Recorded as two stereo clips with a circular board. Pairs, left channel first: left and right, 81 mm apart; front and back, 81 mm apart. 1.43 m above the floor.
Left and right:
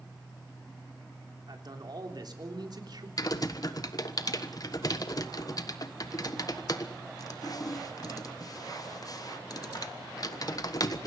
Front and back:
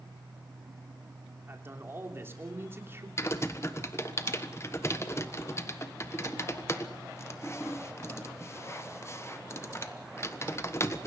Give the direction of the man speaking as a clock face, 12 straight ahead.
4 o'clock.